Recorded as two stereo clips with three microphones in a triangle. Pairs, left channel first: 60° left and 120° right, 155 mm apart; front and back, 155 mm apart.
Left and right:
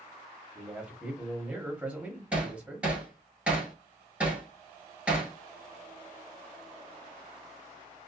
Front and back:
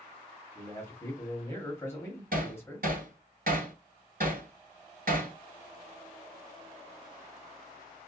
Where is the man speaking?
50° right, 1.0 m.